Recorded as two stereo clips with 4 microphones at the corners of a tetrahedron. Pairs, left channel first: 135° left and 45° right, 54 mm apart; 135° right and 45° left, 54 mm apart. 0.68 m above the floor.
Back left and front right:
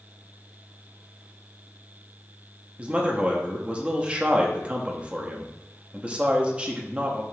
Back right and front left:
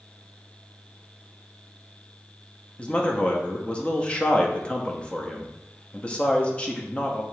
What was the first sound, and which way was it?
A man speaking, 90° right.